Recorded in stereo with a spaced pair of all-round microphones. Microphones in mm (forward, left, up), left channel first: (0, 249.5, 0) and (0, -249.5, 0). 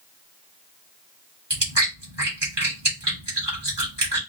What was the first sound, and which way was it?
Chewing, 55° right (ahead or behind).